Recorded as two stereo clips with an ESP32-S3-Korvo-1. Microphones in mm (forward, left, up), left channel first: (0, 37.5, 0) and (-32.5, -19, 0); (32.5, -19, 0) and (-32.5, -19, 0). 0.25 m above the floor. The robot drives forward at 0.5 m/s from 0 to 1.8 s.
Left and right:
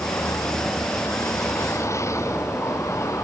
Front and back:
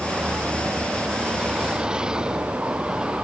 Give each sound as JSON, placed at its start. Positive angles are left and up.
{"t": 0.0, "sound": "a vehicle", "azimuth_deg": 105}